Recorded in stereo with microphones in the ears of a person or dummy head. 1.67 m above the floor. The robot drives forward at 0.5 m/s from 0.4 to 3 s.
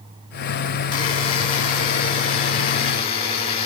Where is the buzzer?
30° left (ahead or behind), 7 m.